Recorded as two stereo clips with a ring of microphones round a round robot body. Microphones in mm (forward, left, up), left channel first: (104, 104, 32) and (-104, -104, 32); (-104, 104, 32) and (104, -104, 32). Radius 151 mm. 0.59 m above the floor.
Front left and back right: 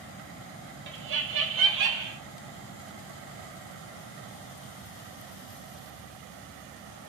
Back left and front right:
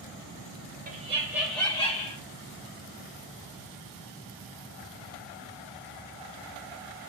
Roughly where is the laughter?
Right.